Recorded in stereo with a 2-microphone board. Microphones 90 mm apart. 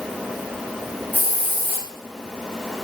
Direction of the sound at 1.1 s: 20° right (ahead or behind).